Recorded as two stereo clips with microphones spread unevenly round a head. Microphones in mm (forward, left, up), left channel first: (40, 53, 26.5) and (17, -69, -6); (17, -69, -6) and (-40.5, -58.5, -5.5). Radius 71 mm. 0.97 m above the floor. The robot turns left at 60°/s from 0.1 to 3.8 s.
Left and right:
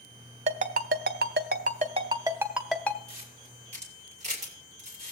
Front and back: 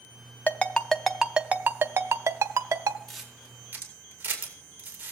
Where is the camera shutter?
95° right, 2.5 m; by 5.1 s 140° right, 2.5 m.